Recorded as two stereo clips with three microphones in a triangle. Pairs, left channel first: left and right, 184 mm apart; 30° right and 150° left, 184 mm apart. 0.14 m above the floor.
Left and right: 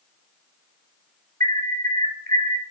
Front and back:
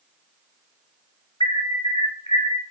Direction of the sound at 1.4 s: 75° right.